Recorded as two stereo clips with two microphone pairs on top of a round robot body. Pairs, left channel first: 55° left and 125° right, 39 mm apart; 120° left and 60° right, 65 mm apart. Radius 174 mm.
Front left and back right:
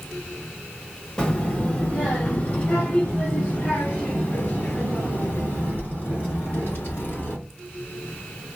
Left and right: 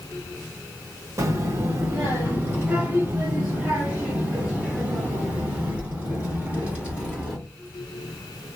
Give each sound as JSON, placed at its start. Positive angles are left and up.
{"t": 1.2, "sound": "a child speaking", "azimuth_deg": -10, "distance_m": 1.2}